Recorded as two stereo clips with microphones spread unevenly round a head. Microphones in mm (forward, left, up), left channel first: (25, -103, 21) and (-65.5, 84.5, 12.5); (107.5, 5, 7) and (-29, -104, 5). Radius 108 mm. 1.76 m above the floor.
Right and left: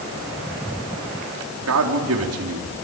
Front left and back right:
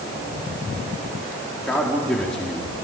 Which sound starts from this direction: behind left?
A man speaking, at 1.7 s.